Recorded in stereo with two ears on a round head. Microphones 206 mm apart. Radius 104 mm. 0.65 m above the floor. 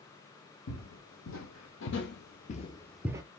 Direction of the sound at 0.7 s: 70° left (ahead or behind).